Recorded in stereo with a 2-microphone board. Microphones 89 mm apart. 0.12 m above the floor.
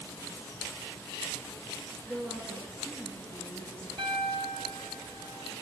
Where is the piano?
65° right (ahead or behind), 1.3 m.